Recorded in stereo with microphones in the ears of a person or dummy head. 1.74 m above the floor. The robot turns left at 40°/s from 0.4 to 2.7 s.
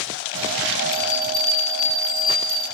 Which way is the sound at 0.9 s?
145° right.